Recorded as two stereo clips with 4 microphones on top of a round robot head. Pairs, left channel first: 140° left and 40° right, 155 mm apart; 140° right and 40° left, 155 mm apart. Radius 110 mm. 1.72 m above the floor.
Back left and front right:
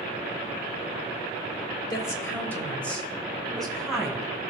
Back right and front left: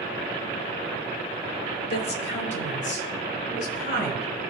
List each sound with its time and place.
1.9 s a woman speaking: 155° right, 1.1 m; by 4.3 s 130° right, 3.5 m